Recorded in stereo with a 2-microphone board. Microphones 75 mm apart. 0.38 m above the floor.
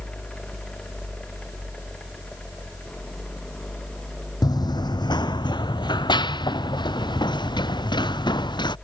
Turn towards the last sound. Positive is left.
turn(degrees=80)